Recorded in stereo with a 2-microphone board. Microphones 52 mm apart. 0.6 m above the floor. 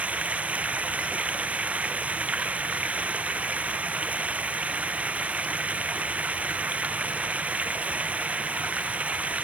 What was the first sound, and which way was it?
Running water, 25° right (ahead or behind).